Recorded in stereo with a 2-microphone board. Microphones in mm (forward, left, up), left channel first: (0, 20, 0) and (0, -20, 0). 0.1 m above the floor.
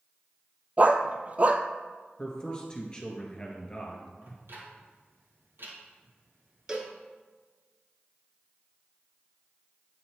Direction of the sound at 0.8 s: 40° right (ahead or behind).